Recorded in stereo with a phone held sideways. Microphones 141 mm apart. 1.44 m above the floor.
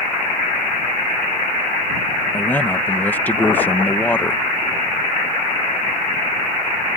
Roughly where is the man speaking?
Centre.